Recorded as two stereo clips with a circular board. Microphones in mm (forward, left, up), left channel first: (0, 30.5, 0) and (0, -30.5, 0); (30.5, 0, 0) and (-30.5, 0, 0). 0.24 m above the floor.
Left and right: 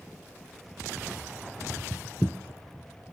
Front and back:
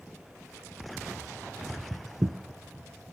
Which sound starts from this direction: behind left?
Footsteps, at 1.6 s.